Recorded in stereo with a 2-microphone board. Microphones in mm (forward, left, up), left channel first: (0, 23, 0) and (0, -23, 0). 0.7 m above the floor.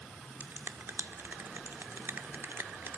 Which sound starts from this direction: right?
A finger snap, at 0.4 s.